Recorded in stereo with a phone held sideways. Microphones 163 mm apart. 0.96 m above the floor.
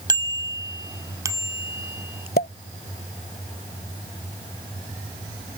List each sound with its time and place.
0.1 s a bicycle bell: 25° right (ahead or behind); by 2.3 s 15° right (ahead or behind)
2.4 s a pop: 70° left (ahead or behind)